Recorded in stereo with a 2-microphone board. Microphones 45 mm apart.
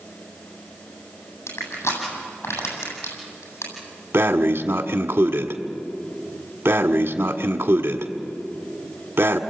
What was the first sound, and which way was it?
Crushing, 85° left.